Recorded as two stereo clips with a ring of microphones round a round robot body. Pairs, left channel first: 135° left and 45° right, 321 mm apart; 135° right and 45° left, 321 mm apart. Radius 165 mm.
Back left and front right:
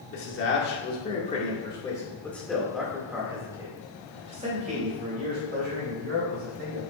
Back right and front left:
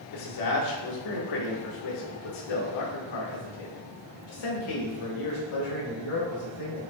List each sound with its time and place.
0.1 s a man speaking: 170° right, 2 m; by 6.8 s 100° right, 4 m